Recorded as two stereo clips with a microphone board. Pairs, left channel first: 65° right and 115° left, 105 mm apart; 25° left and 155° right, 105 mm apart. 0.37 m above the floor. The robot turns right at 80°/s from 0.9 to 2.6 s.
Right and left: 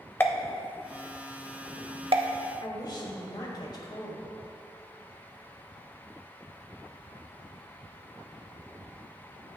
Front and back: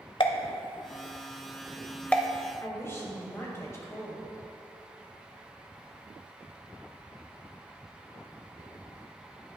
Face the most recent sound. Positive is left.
turn(degrees=-35)